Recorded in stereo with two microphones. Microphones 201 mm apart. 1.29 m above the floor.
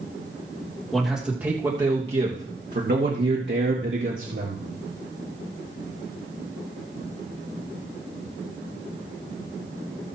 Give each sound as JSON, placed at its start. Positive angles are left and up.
{"t": 0.9, "sound": "a man speaking", "side_deg": 0, "distance_m": 1.8}